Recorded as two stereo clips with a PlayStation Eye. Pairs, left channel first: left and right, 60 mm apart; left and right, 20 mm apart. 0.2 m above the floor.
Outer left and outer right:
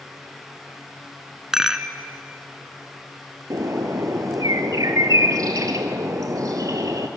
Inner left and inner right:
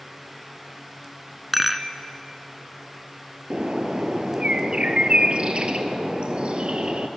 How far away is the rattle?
About 1.1 m.